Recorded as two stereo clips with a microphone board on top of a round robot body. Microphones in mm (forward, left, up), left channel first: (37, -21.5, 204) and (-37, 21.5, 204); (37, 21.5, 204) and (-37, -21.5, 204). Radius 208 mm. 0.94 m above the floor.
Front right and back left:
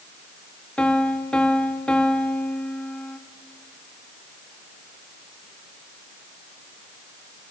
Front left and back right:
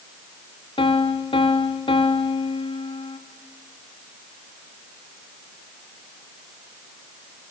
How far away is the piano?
About 2.5 m.